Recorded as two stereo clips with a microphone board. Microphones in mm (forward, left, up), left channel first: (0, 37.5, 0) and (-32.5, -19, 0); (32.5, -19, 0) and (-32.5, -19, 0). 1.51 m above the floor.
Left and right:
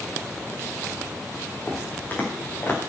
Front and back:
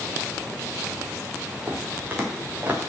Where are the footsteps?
120° left, 4.5 m; by 2.8 s 115° left, 4.5 m.